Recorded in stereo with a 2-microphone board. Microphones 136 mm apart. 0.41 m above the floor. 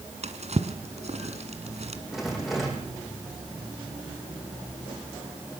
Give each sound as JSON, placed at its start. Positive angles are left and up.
{"t": 0.2, "sound": "a drawer", "side_deg": -55, "distance_m": 1.8}
{"t": 2.1, "sound": "a rattle", "side_deg": 0, "distance_m": 4.5}